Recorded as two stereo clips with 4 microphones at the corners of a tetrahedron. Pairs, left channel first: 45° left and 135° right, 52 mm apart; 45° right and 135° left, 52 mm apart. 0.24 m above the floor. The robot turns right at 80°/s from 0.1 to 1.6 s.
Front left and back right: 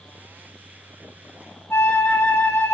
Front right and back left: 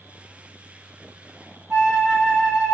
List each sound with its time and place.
1.7 s a flute: 70° left, 1.2 m